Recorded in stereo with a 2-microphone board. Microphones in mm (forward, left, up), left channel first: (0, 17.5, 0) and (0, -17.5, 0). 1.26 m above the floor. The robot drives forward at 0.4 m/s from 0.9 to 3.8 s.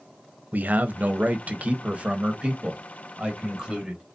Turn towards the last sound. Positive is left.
turn(degrees=-25)  # may be behind; listen again after turning